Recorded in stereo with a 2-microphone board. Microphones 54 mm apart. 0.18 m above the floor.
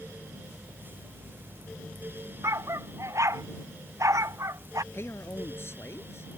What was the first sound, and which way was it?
A dog barking, 55° right (ahead or behind).